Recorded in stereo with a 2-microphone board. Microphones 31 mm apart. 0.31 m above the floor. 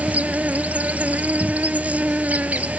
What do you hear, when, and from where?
0.0 s an insect: 55° right (ahead or behind)